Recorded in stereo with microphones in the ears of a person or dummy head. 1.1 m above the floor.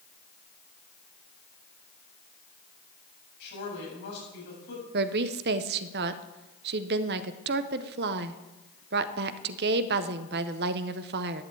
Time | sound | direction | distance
3.4 | a woman speaking | 60° left (ahead or behind) | 8 m
4.9 | a woman speaking | 40° right (ahead or behind) | 0.6 m